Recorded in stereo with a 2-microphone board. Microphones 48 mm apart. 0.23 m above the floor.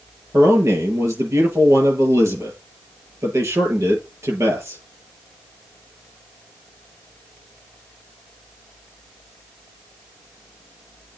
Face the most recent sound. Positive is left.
turn(degrees=-75)  # may be behind; listen again after turning